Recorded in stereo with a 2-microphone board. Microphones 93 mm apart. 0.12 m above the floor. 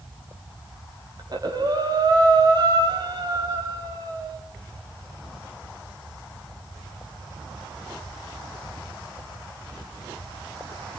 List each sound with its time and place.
1.2 s breathing: 50° right (ahead or behind), 4 m